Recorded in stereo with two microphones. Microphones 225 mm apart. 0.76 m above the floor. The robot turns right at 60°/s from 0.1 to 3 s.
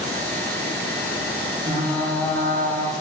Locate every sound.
1.7 s frying: 30° right, 0.5 m; by 2.9 s 45° left, 0.5 m